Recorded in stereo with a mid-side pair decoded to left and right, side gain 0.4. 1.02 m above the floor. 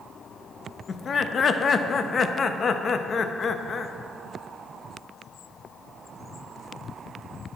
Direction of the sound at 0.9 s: 50° left.